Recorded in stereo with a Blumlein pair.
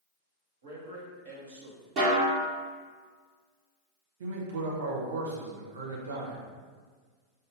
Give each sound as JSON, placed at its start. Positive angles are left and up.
{"t": 0.6, "sound": "a man speaking", "azimuth_deg": -55, "distance_m": 1.4}
{"t": 2.0, "sound": "a snare drum", "azimuth_deg": -40, "distance_m": 1.4}
{"t": 4.2, "sound": "a man speaking", "azimuth_deg": -65, "distance_m": 1.1}